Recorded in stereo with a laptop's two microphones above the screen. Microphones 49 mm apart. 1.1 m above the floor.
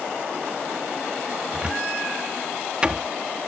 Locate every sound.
1.5 s a cupboard door: 20° right (ahead or behind)